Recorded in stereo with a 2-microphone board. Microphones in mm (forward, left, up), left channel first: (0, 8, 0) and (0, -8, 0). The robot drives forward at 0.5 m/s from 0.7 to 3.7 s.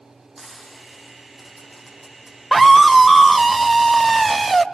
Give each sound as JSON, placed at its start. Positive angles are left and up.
{"t": 0.4, "sound": "frying", "side_deg": -15, "distance_m": 8.0}
{"t": 2.5, "sound": "a scream", "side_deg": 0, "distance_m": 1.1}